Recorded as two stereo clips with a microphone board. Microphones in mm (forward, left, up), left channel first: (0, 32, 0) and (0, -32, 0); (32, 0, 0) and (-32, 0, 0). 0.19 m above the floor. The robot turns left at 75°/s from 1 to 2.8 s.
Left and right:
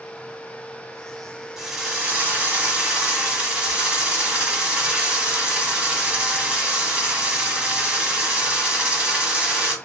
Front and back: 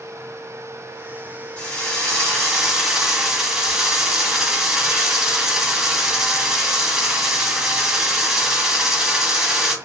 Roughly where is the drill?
Ahead right.